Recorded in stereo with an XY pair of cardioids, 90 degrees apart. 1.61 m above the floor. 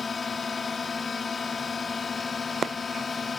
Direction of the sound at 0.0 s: 40° left.